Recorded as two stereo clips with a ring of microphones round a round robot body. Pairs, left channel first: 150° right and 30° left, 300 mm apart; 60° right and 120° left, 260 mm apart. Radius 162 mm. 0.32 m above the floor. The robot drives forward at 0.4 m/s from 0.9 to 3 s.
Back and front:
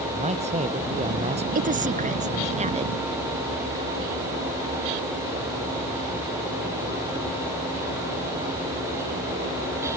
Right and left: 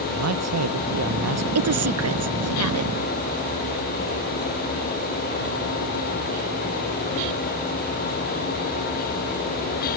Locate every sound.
0.1 s a man speaking: 100° left
1.6 s a woman speaking: 95° left; by 2.9 s 100° left